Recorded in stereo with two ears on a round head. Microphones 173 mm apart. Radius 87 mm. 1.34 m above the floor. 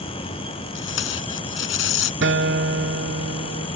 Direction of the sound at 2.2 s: 60° right (ahead or behind).